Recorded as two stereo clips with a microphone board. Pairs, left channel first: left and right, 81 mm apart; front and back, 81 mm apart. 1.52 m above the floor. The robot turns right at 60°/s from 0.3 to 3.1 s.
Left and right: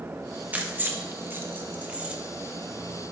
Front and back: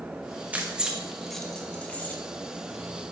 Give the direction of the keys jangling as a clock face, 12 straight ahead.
4 o'clock.